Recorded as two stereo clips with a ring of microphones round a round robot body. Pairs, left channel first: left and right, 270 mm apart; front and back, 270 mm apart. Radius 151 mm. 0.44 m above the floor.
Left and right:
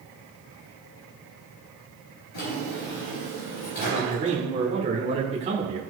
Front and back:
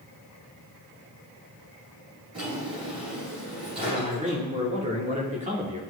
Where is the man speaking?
135° right, 1.6 m.